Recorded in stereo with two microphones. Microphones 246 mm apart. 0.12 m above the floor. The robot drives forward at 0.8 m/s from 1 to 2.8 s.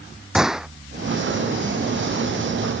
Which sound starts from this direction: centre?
A gunshot, at 0.3 s.